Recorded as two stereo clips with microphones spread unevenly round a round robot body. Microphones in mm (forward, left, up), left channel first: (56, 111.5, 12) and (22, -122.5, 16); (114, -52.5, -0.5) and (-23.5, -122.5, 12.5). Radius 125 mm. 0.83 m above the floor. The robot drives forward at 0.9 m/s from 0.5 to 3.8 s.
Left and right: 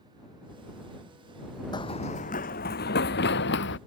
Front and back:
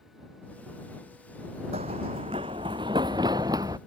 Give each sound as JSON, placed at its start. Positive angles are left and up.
{"t": 1.7, "sound": "running footsteps", "azimuth_deg": 155}